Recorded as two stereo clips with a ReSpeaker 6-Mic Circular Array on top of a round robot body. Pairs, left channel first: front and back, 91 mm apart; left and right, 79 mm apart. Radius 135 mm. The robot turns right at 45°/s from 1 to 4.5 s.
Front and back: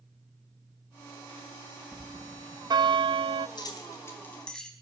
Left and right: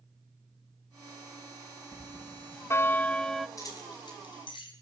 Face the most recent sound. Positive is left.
turn(degrees=80)